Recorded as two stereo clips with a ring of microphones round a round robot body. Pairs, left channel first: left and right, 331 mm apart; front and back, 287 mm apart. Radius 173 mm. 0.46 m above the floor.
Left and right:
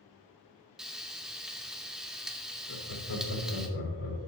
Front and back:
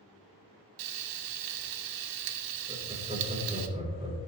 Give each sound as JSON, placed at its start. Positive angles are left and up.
{"t": 0.8, "sound": "frying", "azimuth_deg": 180, "distance_m": 0.6}
{"t": 2.7, "sound": "laughter", "azimuth_deg": 115, "distance_m": 3.0}